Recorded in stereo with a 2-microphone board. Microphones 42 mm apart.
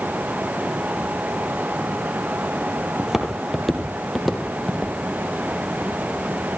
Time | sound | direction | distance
3.0 | footsteps | 10° right (ahead or behind) | 2 m